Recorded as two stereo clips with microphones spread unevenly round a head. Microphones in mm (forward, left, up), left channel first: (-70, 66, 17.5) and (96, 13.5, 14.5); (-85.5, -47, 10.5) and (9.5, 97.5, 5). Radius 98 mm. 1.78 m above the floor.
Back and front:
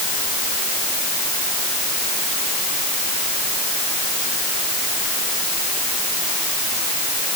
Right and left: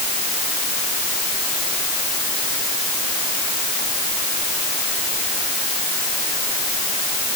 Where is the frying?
No frying in this recording.